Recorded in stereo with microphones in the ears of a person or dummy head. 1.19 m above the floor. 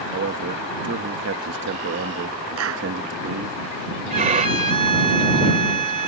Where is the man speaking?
60° right (ahead or behind).